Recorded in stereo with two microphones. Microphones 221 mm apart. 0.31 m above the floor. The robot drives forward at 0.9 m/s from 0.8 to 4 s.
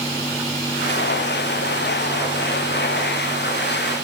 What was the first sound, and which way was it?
Only background noise.